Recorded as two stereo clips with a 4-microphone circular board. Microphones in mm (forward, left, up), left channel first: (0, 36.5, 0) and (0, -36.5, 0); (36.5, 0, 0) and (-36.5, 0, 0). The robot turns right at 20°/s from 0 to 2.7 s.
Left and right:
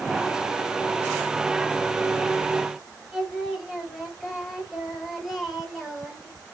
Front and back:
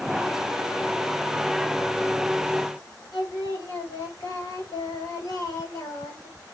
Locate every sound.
3.1 s singing: 5° right, 2.5 m